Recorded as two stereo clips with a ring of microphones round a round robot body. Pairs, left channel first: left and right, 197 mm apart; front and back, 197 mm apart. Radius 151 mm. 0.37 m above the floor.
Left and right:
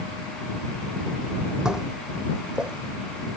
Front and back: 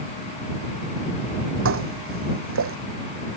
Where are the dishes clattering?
175° right.